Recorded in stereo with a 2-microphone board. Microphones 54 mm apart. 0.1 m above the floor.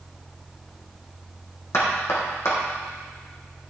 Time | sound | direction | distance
1.7 | knocking | 60° left (ahead or behind) | 3.5 m